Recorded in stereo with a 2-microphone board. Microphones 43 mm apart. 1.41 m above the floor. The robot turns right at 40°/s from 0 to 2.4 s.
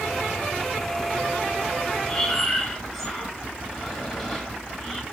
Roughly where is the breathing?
Centre.